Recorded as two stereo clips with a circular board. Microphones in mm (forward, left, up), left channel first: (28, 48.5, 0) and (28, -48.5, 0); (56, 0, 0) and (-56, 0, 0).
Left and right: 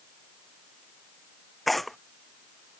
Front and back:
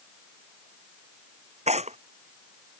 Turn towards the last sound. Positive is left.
turn(degrees=180)